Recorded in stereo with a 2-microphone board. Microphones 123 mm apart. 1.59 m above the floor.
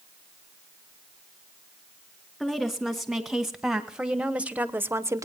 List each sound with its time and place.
2.4 s a woman speaking: centre (ahead or behind), 2.5 m; by 5.2 s 25° right (ahead or behind), 0.9 m